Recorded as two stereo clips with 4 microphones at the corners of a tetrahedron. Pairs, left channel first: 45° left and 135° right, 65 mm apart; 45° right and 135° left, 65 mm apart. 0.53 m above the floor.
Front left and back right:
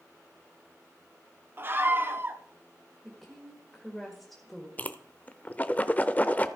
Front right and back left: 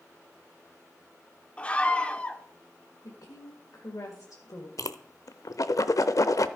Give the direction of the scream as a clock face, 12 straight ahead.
4 o'clock.